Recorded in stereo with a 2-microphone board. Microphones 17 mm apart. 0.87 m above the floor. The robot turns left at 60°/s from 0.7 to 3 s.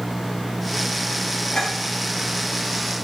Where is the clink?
55° left (ahead or behind), 8.5 m; by 1.7 s 65° left (ahead or behind), 8.5 m.